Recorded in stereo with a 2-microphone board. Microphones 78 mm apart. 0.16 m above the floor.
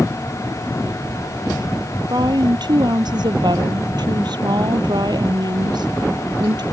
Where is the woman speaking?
65° right (ahead or behind).